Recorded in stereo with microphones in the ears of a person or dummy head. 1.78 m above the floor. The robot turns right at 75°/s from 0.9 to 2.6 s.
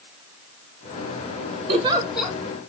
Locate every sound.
1.7 s a giggle: 40° right (ahead or behind), 0.8 m; by 2.4 s 10° left (ahead or behind), 0.8 m